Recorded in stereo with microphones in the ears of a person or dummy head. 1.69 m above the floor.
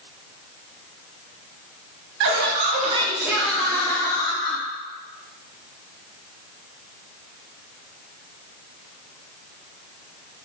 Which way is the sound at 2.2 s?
70° right (ahead or behind).